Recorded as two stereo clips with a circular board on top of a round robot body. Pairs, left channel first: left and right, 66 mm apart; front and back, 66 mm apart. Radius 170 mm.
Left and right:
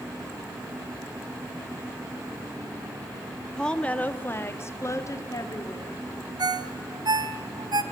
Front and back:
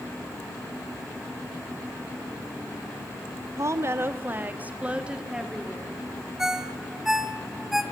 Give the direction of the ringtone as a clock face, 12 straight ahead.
3 o'clock.